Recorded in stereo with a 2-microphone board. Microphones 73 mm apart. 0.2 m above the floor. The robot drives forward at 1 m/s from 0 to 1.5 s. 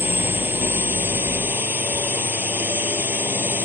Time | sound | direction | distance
0.0 | a drone | 30° right (ahead or behind) | ?